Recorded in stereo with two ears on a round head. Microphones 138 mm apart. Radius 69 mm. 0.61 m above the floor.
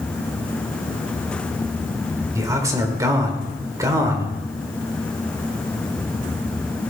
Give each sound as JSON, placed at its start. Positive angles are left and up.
{"t": 2.4, "sound": "a man speaking", "side_deg": -25, "distance_m": 2.5}